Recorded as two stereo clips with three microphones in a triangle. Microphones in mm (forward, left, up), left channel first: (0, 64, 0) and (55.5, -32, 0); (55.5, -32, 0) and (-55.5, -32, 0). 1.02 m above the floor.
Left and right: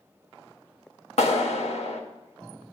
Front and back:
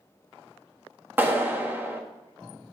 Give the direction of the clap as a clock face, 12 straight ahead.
8 o'clock.